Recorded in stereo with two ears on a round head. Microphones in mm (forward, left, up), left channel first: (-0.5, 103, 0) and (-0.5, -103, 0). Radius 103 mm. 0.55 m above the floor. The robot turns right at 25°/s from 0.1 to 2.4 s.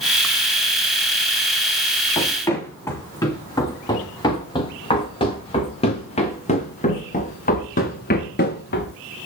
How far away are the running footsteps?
About 9.5 m.